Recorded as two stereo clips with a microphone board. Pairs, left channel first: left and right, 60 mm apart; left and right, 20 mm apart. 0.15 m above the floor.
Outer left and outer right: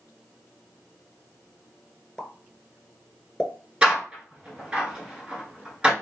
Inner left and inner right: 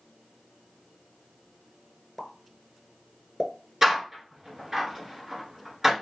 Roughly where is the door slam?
Centre.